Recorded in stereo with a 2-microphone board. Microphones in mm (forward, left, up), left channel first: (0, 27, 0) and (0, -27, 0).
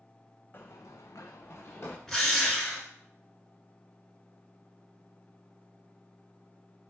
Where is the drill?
5° left (ahead or behind), 1.0 m.